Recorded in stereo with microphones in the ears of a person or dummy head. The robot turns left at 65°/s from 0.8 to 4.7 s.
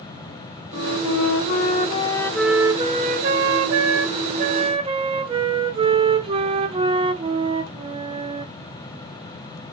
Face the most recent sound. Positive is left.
turn(degrees=-150)